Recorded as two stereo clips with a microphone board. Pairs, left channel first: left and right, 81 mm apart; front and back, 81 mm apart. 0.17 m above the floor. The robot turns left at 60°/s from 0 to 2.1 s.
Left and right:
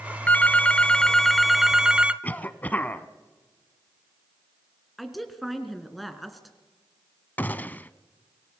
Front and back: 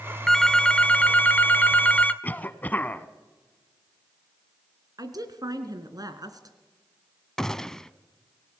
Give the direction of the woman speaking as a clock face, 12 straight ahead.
6 o'clock.